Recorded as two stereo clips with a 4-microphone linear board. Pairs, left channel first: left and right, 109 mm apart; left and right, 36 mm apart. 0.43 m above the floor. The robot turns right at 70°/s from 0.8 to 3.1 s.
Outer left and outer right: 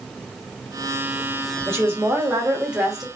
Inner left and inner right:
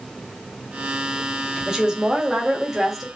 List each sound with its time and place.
1.7 s a woman speaking: 20° right (ahead or behind), 1.2 m; by 3.0 s centre (ahead or behind), 1.2 m